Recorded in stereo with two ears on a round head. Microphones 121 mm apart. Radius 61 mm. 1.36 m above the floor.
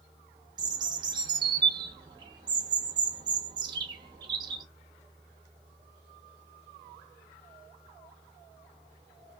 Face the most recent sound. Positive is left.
turn(degrees=-35)  # may be behind; listen again after turning